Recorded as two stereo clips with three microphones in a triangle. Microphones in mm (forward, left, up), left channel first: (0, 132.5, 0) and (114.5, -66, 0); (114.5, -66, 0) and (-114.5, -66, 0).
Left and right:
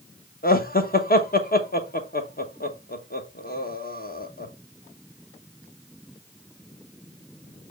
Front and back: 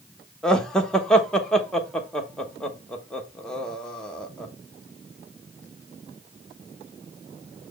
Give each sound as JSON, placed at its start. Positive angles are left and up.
{"t": 0.4, "sound": "laughter", "azimuth_deg": 85, "distance_m": 1.1}